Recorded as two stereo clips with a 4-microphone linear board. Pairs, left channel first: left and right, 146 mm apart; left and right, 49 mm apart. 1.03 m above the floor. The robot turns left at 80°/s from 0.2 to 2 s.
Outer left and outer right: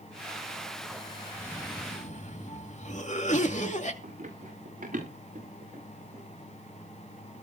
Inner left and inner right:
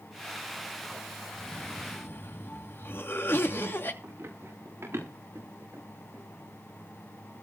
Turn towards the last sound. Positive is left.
turn(degrees=-70)  # may be behind; listen again after turning